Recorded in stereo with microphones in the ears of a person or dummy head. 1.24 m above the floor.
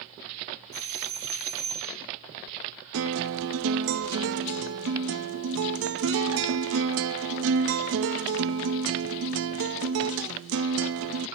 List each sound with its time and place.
0.7 s a doorbell: 35° right (ahead or behind), 3 m
2.9 s a guitar: 65° right (ahead or behind), 0.8 m